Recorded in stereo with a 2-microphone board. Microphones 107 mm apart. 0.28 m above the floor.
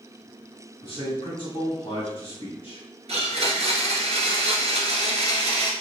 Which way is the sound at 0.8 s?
55° left (ahead or behind).